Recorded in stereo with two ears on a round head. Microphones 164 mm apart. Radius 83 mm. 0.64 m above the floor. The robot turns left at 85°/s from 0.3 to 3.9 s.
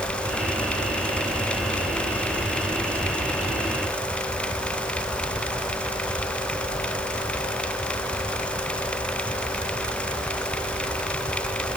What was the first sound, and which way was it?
Only background noise.